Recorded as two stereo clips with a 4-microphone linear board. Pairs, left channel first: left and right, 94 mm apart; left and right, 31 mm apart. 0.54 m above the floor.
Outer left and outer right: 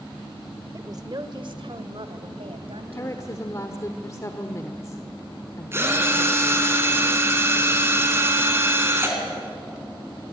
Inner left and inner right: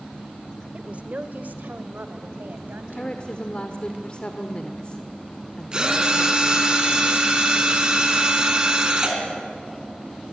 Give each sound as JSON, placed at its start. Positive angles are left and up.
{"t": 0.7, "sound": "a woman speaking", "side_deg": -35, "distance_m": 1.6}
{"t": 3.0, "sound": "a woman speaking", "side_deg": 35, "distance_m": 1.2}
{"t": 5.7, "sound": "a drill", "side_deg": -25, "distance_m": 3.5}